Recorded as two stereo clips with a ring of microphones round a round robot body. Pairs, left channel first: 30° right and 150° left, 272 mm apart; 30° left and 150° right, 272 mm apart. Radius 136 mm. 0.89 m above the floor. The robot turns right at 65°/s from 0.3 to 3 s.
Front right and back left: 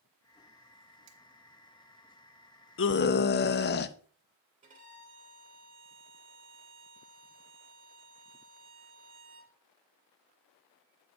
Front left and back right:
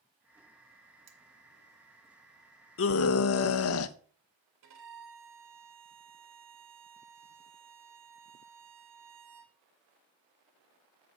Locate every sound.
1.1 s cutlery clinking: 160° left, 1.8 m; by 1.2 s 165° left, 1.8 m
2.8 s a scream: straight ahead, 0.6 m; by 4.0 s 15° left, 0.6 m
4.6 s a violin: 145° right, 2.5 m